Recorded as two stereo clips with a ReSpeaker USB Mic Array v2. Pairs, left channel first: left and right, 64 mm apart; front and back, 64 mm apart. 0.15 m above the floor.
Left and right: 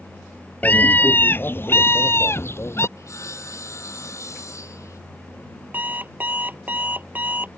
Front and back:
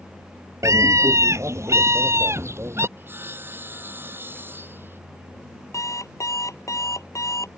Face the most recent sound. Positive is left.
turn(degrees=-30)